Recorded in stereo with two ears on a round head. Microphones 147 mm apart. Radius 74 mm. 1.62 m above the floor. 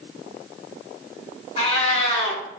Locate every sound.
1.6 s a cat meowing: 40° left (ahead or behind), 1.4 m